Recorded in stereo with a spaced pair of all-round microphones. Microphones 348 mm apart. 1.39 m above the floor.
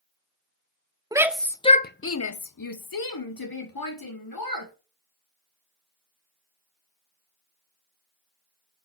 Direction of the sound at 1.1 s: 10° right (ahead or behind).